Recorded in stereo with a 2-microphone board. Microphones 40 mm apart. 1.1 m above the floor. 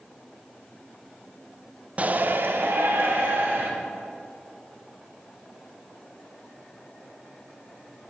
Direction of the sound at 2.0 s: 35° right (ahead or behind).